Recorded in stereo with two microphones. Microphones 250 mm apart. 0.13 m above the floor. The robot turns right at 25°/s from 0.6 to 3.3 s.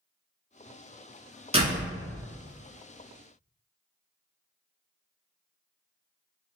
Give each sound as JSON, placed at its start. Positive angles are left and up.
{"t": 1.5, "sound": "a door slam", "side_deg": -25, "distance_m": 0.8}